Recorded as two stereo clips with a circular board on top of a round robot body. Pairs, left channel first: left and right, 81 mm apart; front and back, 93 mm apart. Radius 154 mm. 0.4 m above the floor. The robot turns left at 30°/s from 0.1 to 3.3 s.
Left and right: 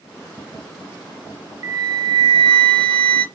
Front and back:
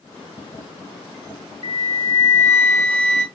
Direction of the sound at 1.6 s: 30° right.